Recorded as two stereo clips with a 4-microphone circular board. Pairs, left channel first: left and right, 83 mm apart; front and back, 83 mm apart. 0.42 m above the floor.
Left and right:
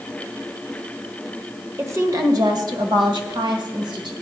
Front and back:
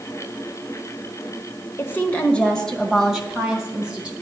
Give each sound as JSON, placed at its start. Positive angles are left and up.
{"t": 1.8, "sound": "a woman speaking", "azimuth_deg": -45, "distance_m": 1.3}